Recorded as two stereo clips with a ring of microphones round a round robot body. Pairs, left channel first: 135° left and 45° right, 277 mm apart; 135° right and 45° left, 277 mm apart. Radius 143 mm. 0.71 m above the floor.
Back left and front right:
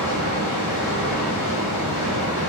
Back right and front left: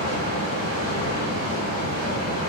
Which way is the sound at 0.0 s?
100° left.